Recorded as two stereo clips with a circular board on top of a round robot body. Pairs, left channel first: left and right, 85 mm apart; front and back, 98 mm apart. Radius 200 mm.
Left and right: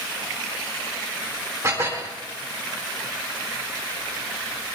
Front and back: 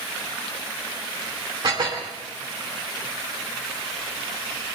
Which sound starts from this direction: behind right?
Dishes clattering, at 1.6 s.